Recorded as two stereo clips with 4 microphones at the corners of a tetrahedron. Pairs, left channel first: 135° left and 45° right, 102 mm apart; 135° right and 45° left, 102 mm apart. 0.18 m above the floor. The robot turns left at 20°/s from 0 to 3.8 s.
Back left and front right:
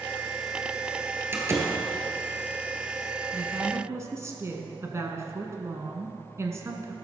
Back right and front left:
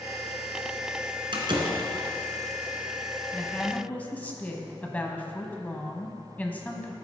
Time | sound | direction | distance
1.3 | a door slam | 20° left | 1.6 m
3.3 | a woman speaking | 65° right | 1.1 m